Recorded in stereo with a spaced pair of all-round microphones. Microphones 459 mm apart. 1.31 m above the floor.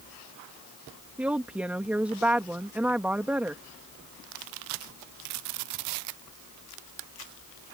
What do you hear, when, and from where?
1.2 s a woman speaking: 5° right (ahead or behind)